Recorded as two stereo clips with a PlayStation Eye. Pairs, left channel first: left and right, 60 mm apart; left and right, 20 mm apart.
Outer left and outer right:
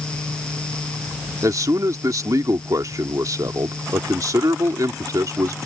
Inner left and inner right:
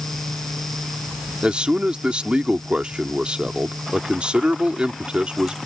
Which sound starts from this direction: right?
A man speaking, at 1.4 s.